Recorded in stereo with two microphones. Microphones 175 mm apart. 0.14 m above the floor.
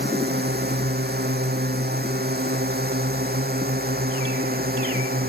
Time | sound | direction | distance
0.0 | a drone | 75° right (ahead or behind) | ?